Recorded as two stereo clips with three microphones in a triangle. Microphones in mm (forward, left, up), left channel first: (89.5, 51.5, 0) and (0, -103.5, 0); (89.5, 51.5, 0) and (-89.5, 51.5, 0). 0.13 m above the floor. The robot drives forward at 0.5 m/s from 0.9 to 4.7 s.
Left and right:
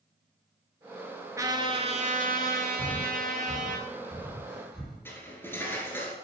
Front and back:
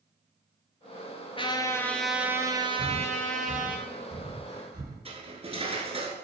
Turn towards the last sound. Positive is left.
turn(degrees=135)